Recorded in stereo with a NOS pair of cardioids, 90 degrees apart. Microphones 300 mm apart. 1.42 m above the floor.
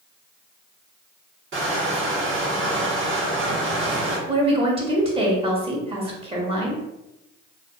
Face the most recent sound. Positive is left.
turn(degrees=-20)